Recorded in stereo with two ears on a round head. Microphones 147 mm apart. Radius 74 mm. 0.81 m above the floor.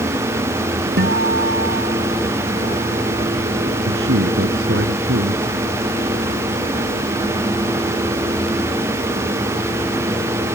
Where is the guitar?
80° right.